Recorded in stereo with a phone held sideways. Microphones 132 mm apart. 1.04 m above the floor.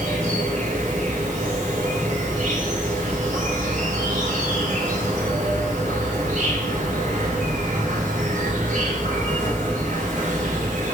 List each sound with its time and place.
0.0 s an insect: 75° right (ahead or behind), 2.5 m